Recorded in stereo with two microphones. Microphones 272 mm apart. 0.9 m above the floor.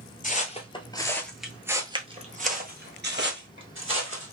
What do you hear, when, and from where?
0.2 s footsteps: 30° left (ahead or behind), 1.0 m; by 4.3 s 50° right (ahead or behind), 1.7 m